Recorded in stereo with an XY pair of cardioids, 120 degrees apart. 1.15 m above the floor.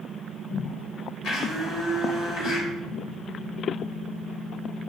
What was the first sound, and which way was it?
A blender, 70° left.